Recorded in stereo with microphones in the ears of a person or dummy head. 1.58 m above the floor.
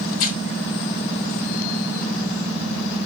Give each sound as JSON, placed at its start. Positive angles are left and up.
{"t": 0.1, "sound": "tearing paper", "side_deg": 45, "distance_m": 1.9}